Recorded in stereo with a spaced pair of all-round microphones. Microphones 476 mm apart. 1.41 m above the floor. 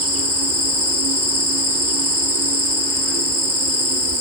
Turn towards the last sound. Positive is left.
turn(degrees=-30)  # may be behind; listen again after turning